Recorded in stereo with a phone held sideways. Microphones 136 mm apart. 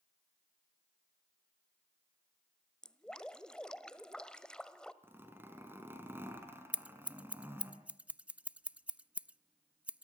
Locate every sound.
2.8 s dripping: 5° left (ahead or behind), 1.3 m
5.0 s a zipper: 15° right (ahead or behind), 4.5 m
6.7 s scissors: 10° right (ahead or behind), 0.6 m